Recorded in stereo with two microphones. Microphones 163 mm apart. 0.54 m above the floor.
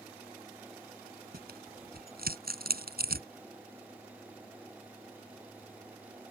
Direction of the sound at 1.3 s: 75° right (ahead or behind).